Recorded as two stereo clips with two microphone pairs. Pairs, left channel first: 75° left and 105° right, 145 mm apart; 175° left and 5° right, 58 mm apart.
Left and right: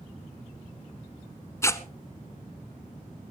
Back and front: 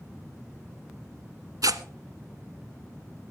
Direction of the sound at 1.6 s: 5° left.